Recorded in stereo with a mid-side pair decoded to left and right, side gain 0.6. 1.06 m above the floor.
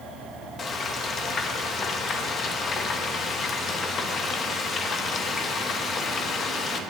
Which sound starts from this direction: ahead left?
Frying, at 0.6 s.